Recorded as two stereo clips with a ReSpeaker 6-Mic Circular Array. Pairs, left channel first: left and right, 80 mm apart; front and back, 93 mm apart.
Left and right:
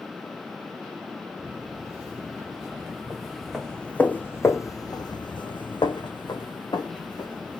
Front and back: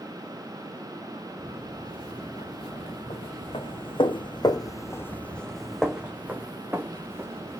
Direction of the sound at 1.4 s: 20° right.